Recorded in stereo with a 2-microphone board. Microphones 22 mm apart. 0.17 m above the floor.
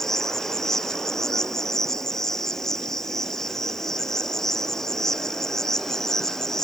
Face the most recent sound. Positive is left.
turn(degrees=20)  # may be behind; listen again after turning